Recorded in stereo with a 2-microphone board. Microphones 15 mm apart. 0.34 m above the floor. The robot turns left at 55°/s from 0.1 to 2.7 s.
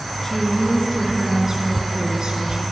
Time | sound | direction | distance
0.2 | a woman speaking | 35° left | 5.5 m